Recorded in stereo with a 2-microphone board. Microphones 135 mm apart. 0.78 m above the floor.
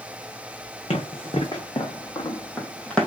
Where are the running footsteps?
45° left (ahead or behind), 1.7 m; by 3.1 s 5° left (ahead or behind), 1.1 m.